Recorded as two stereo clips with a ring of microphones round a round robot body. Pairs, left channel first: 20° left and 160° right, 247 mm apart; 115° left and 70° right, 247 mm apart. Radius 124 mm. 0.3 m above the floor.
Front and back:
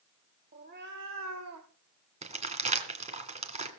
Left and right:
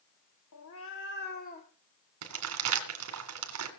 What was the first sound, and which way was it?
A cat meowing, 145° left.